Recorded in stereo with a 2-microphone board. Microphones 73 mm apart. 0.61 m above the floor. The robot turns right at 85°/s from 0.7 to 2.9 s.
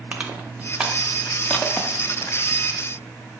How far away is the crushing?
About 0.5 m.